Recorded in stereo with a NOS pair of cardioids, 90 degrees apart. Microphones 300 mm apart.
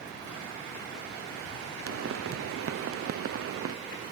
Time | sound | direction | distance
1.9 | a pop | 50° right | ?